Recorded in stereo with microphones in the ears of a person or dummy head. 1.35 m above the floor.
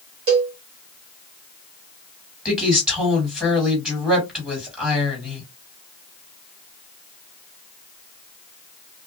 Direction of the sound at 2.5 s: 5° right (ahead or behind).